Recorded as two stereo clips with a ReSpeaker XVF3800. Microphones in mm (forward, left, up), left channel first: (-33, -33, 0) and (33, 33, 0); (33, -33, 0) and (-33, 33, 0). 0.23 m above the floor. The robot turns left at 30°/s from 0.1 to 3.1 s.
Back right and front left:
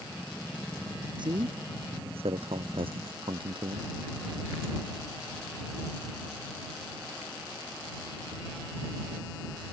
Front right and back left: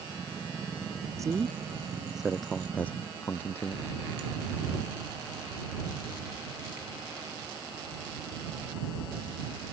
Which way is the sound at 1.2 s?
80° left.